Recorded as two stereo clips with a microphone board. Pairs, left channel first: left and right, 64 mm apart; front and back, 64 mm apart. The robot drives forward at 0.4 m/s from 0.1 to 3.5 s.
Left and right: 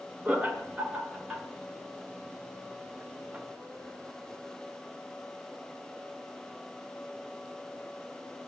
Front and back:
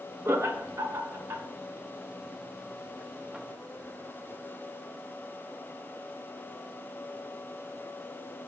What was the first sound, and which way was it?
Laughter, 145° right.